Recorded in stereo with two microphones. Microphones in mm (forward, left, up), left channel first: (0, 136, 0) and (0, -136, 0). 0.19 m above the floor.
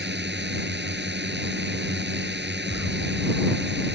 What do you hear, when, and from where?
0.0 s a drone: 40° right (ahead or behind)
2.7 s an explosion: 50° left (ahead or behind)